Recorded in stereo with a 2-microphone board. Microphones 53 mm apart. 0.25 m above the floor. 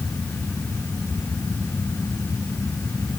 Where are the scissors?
No scissors in this recording.